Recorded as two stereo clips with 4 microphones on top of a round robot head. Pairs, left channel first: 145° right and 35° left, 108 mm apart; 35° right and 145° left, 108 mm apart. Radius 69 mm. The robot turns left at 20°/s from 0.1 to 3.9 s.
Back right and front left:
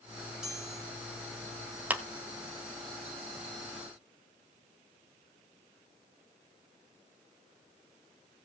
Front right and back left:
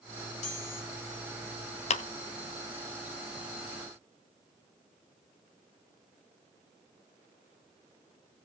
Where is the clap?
45° right, 1.3 m.